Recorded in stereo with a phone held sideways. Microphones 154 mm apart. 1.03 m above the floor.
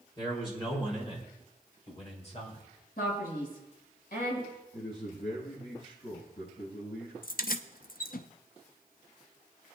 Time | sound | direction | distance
0.2 | a man speaking | 30° left (ahead or behind) | 4 m
3.0 | a man speaking | 85° left | 7 m
4.7 | a man speaking | 75° left (ahead or behind) | 7 m
7.2 | keys jangling | 65° left (ahead or behind) | 0.6 m